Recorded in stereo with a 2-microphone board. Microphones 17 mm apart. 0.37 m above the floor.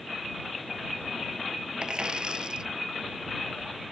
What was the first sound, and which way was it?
A dropped coin, 50° right (ahead or behind).